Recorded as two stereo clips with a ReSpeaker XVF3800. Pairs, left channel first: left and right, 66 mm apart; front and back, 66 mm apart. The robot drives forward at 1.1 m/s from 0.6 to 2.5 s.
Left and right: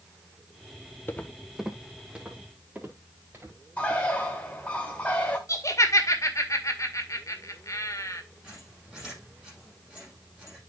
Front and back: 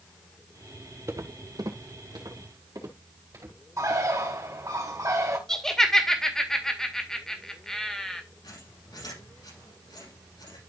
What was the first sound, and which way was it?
Footsteps, 140° left.